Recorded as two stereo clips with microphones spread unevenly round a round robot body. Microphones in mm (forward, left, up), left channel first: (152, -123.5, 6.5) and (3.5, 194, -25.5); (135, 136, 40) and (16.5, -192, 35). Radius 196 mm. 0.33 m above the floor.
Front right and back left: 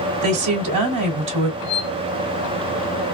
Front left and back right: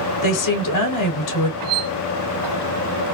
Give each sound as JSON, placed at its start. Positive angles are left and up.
{"t": 0.2, "sound": "a woman speaking", "azimuth_deg": 100, "distance_m": 2.5}
{"t": 1.6, "sound": "a squeak", "azimuth_deg": -85, "distance_m": 1.7}